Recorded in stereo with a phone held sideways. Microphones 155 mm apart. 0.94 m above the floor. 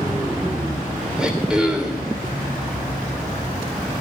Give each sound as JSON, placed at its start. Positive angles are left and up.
{"t": 1.2, "sound": "throat clearing", "side_deg": -5, "distance_m": 3.0}